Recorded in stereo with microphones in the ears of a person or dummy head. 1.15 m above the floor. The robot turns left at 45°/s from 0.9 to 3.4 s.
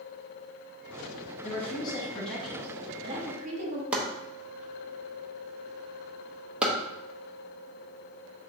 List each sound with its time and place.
1.4 s a woman speaking: 45° left, 1.3 m; by 3.8 s 40° right, 1.3 m
3.9 s chopping: centre (ahead or behind), 0.8 m